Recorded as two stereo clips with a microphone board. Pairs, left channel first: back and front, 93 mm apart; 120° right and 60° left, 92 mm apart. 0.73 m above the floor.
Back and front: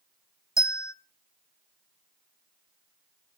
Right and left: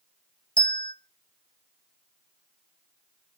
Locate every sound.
0.6 s a bell: 125° right, 1.1 m